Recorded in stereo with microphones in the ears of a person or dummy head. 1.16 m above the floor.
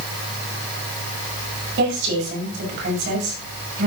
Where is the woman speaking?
60° right (ahead or behind), 6 m.